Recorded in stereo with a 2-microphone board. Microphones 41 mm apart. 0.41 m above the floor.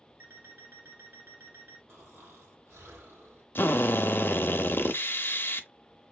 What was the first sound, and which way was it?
An alarm clock, 80° right.